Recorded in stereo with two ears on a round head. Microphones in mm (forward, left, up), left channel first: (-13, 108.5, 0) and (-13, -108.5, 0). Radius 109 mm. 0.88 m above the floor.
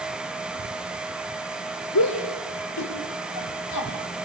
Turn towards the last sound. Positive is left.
turn(degrees=80)